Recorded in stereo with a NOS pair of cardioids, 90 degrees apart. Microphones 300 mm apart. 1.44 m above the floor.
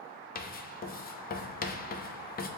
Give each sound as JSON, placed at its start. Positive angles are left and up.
{"t": 0.3, "sound": "writing", "azimuth_deg": 30, "distance_m": 0.5}